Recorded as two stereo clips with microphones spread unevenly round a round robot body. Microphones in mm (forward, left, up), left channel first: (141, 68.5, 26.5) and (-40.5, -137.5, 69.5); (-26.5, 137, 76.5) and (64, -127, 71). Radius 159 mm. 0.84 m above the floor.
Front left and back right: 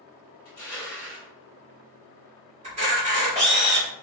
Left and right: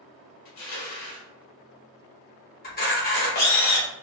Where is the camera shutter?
165° left, 0.9 m.